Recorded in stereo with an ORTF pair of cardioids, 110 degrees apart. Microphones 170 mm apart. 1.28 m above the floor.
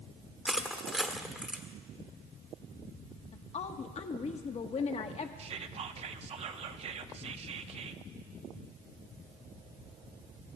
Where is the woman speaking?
40° left, 1.1 m.